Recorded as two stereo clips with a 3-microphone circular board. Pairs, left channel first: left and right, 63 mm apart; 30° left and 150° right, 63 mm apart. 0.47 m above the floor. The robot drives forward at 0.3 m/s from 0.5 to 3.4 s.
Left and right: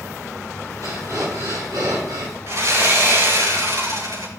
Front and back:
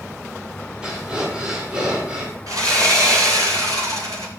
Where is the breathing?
75° right, 7 m; by 2.4 s 80° right, 7 m.